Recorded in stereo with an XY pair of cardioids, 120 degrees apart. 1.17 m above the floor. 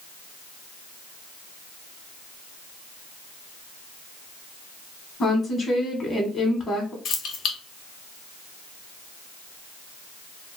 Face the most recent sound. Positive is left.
turn(degrees=65)